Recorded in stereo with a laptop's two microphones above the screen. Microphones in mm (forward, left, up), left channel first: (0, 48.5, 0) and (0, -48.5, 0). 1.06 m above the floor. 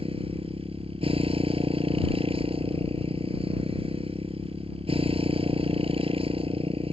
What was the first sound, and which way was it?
A motorcycle, 75° right (ahead or behind).